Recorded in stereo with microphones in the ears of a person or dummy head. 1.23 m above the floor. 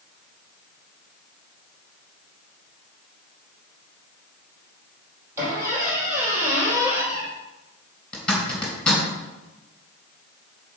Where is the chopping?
No chopping in this recording.